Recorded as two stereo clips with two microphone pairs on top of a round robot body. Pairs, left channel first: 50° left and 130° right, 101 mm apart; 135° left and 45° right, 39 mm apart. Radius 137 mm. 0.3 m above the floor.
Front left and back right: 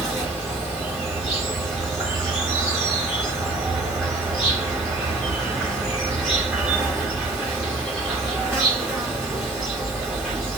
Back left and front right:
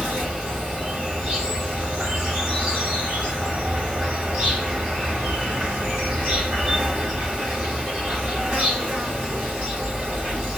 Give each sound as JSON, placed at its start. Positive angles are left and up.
{"t": 0.0, "sound": "an insect", "azimuth_deg": -25, "distance_m": 2.0}